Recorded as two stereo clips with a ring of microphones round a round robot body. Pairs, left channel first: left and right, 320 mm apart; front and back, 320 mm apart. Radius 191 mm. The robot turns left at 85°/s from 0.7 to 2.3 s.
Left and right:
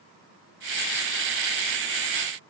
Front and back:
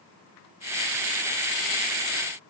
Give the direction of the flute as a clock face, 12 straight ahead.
I don't hear a flute.